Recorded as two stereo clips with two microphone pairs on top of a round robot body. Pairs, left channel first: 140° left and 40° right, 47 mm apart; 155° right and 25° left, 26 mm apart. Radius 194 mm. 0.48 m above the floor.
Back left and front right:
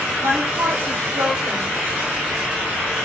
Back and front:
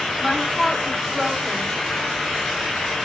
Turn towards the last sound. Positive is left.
turn(degrees=-45)